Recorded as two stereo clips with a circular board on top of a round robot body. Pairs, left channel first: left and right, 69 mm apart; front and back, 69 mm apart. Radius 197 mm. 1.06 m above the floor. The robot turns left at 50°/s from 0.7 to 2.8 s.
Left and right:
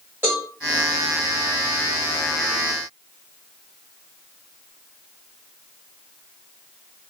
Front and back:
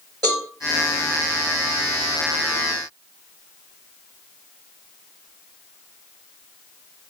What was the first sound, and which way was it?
A cowbell, 155° right.